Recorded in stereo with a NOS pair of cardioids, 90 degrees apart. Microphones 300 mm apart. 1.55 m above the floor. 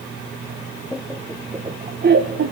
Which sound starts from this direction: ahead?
Laughter, at 0.9 s.